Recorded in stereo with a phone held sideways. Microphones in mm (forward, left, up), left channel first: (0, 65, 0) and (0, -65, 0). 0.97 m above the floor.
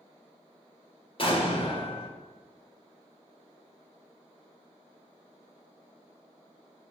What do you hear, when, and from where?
1.2 s an explosion: 40° left (ahead or behind), 1.2 m